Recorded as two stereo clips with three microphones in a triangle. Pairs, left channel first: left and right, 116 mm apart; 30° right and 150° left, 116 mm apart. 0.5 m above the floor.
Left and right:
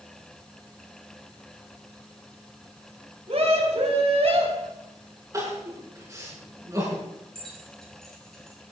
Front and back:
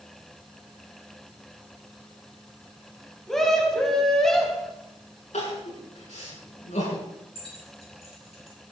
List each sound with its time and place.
3.3 s a scream: 115° right, 3.5 m
5.3 s crying: 25° right, 6.5 m
7.3 s keys jangling: 5° left, 5.5 m